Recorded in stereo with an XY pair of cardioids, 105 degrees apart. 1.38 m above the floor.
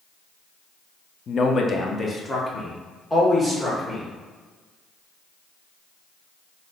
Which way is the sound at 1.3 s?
45° left.